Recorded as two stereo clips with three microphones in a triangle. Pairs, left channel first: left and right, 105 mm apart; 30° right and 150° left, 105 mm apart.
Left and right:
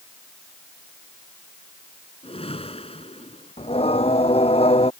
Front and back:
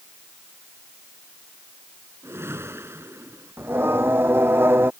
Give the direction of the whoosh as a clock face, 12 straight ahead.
9 o'clock.